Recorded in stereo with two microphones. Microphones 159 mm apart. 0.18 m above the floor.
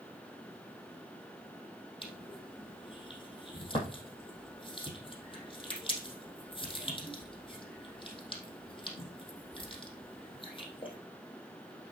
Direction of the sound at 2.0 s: 35° left (ahead or behind).